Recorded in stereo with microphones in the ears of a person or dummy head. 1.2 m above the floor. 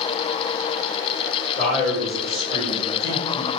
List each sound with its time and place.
1.6 s a man speaking: 40° left (ahead or behind), 1.9 m